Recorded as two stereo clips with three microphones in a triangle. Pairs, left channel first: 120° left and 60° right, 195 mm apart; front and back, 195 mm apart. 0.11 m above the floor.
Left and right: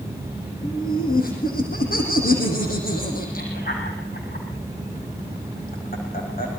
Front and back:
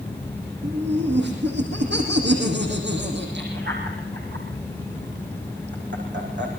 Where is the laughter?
160° left, 5.5 m.